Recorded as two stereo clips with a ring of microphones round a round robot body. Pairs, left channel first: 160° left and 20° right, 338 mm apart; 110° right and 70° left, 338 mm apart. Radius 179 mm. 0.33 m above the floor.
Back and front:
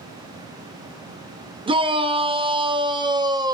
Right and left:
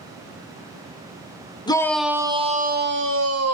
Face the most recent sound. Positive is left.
turn(degrees=50)